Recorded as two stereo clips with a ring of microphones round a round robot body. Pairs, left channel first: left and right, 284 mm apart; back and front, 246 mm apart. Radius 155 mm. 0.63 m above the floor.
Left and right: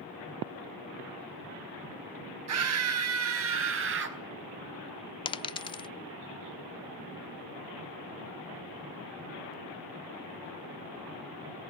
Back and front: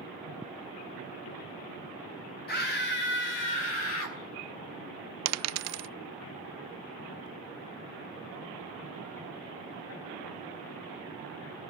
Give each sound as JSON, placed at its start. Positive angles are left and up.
{"t": 2.5, "sound": "a scream", "azimuth_deg": -125, "distance_m": 4.5}
{"t": 5.2, "sound": "a dropped coin", "azimuth_deg": 15, "distance_m": 0.5}